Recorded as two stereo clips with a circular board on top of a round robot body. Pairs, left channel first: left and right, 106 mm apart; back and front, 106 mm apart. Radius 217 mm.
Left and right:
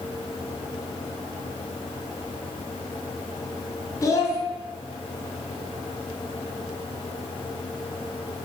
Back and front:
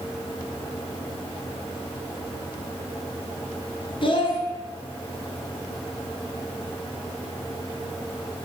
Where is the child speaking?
145° left, 0.9 m.